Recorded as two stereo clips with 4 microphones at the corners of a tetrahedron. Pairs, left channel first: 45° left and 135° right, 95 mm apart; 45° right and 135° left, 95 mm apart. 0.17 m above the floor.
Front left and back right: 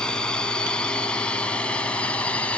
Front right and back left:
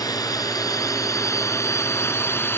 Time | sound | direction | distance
0.0 | a drone | 35° right | ?